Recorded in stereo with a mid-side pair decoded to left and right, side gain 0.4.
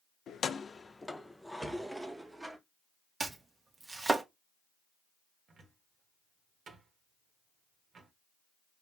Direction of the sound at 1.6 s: 5° right.